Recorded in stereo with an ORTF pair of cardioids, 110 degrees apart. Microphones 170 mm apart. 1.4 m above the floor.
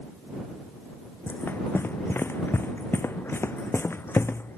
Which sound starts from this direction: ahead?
Running footsteps, at 1.3 s.